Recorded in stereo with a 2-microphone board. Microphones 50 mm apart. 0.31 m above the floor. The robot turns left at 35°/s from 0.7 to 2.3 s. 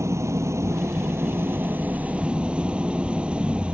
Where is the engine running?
100° right; by 3.8 s 160° right.